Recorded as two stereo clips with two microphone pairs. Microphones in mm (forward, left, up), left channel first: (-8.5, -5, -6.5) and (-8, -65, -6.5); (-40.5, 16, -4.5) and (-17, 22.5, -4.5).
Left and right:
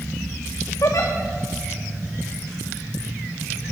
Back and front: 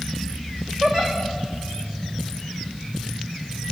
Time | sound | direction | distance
0.8 | a giggle | 65° left | 2.5 m